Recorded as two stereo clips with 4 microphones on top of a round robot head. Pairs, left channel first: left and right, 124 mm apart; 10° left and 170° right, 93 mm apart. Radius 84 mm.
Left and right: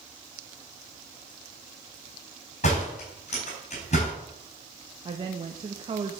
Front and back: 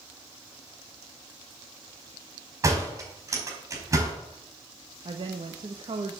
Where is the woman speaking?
140° right, 1.2 m.